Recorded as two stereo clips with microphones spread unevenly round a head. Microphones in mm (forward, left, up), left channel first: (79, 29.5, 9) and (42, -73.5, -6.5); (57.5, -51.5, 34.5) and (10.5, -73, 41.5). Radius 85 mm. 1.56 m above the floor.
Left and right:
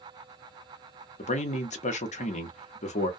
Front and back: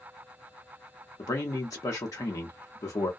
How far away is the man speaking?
About 0.8 m.